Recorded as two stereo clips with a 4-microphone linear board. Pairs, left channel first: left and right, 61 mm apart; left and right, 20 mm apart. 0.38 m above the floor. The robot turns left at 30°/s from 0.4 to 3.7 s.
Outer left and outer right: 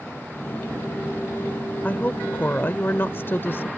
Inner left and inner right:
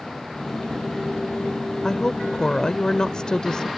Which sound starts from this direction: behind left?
A woman speaking, at 1.8 s.